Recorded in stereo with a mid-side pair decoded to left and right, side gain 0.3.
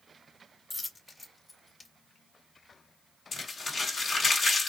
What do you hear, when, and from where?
0.7 s a dropped coin: 50° left, 1.7 m
3.3 s crumpling: 70° left, 1.7 m